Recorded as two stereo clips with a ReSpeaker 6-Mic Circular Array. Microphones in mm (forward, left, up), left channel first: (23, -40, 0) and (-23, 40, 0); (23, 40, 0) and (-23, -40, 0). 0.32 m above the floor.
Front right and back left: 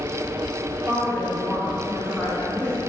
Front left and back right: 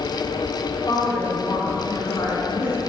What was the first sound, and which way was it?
A woman speaking, 10° left.